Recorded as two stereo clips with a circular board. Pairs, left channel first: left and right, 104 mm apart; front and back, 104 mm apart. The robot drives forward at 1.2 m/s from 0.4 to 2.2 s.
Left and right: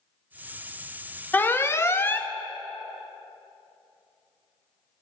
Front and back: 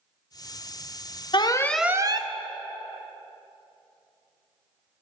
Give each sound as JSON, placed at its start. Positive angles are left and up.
{"t": 1.3, "sound": "an alarm", "azimuth_deg": 20, "distance_m": 0.7}